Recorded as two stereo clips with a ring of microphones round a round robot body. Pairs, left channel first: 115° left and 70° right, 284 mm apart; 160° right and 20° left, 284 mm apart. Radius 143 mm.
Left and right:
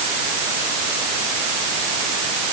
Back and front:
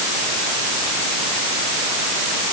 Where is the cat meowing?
No cat meowing in this recording.